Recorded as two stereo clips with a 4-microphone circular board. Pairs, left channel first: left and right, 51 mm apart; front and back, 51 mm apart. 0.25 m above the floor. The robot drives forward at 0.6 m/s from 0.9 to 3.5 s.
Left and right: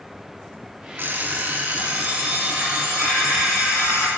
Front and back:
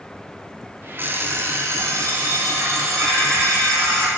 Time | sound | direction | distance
1.0 | an alarm clock | 135° right | 0.8 m